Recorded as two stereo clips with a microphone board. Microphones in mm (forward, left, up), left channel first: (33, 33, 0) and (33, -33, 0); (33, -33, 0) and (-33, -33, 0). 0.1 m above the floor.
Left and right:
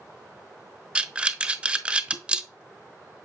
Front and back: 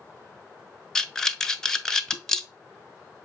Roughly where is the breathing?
Ahead right.